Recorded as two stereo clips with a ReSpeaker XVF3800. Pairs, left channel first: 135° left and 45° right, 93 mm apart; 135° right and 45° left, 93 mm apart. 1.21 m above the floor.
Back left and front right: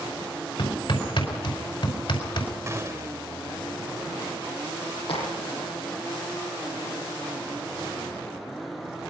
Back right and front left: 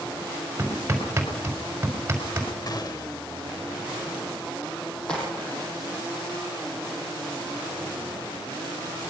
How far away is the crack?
About 8 m.